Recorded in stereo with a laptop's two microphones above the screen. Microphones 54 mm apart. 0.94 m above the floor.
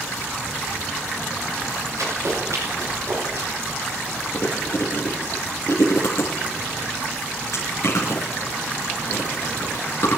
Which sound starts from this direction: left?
Chewing, at 4.3 s.